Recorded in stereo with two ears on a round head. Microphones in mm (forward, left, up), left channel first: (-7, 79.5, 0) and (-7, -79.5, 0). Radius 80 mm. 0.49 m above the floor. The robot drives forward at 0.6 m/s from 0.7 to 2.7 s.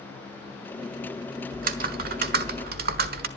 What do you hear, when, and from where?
1.5 s typing on a keyboard: 50° right (ahead or behind), 1.5 m; by 3.3 s 55° right (ahead or behind), 1.3 m